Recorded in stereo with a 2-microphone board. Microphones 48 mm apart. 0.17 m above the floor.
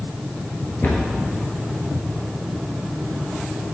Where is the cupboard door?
50° left (ahead or behind), 1.2 m.